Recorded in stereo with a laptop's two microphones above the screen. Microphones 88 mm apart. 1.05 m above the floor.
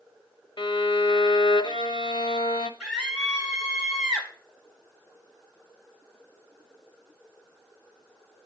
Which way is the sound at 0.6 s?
75° left (ahead or behind).